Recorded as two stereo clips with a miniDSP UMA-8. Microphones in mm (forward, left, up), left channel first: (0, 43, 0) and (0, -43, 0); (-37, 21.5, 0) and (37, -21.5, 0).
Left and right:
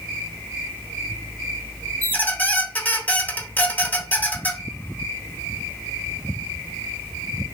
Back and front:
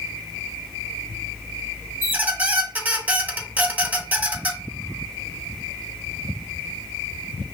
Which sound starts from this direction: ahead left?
A squeak, at 2.0 s.